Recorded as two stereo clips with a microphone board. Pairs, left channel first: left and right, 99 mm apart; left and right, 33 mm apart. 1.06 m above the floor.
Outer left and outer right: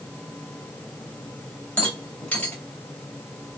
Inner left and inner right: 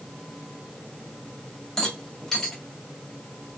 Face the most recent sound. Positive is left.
turn(degrees=15)  # may be behind; listen again after turning